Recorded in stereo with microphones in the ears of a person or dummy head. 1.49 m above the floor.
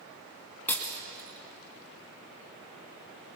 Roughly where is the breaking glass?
Centre.